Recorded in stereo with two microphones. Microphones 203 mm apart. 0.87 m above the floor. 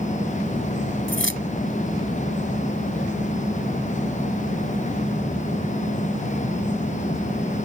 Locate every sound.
1.1 s keys jangling: 75° left (ahead or behind)